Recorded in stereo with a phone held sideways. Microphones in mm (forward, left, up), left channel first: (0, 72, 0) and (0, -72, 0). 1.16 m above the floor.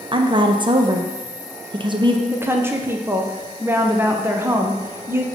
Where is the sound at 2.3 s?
15° right (ahead or behind), 0.6 m.